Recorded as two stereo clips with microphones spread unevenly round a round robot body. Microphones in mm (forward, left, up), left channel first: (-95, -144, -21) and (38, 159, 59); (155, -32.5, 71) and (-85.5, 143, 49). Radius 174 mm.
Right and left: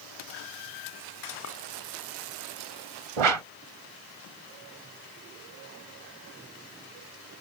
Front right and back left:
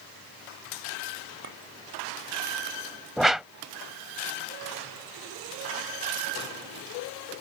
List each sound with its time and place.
1.4 s a clink: 155° right
3.2 s a whoosh: 55° left